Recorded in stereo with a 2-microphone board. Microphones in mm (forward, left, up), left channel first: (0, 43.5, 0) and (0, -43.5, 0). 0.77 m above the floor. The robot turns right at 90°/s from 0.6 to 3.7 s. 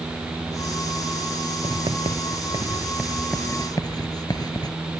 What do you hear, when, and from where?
1.6 s writing: 45° right (ahead or behind); by 4.8 s 50° left (ahead or behind)